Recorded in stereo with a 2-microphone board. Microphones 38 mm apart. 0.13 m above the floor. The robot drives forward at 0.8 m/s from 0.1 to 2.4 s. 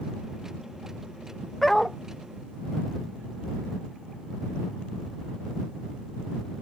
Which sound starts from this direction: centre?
A dog barking, at 1.6 s.